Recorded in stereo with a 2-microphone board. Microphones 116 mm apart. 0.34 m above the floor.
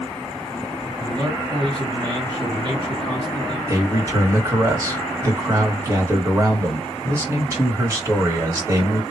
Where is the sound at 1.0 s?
30° right (ahead or behind), 1.8 m.